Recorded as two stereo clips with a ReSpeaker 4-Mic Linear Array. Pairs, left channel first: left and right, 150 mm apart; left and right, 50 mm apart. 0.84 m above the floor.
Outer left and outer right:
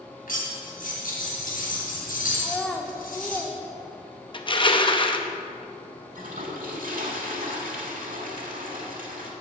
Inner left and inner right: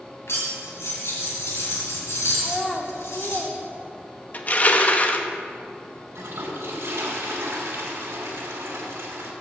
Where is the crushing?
35° left (ahead or behind), 0.7 m.